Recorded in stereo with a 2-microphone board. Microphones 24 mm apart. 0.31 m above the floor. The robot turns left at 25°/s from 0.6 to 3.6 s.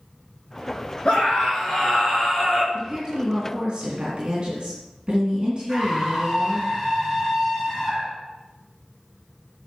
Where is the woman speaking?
20° right (ahead or behind), 2.5 m; by 6.7 s 40° right (ahead or behind), 2.5 m.